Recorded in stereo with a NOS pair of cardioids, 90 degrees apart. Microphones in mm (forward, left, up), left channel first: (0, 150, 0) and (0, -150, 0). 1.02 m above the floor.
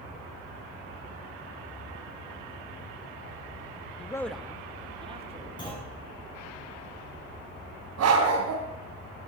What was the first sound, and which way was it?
A man speaking, 25° left.